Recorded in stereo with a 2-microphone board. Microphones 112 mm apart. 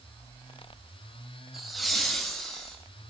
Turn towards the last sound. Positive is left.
turn(degrees=5)  # may be behind; listen again after turning